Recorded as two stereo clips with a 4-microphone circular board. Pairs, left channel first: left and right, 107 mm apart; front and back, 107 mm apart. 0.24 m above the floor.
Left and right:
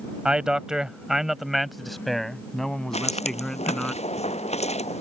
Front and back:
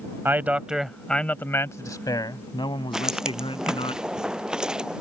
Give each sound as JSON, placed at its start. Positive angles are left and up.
{"t": 0.2, "sound": "a man speaking", "azimuth_deg": -160}
{"t": 2.9, "sound": "footsteps", "azimuth_deg": 95}